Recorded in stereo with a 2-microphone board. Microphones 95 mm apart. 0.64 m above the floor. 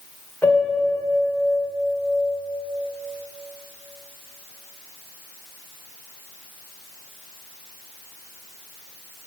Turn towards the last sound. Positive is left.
turn(degrees=20)  # may be behind; listen again after turning